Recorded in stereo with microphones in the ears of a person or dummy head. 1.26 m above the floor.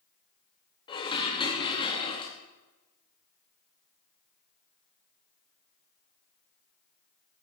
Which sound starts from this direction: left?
Dishes clattering, at 0.9 s.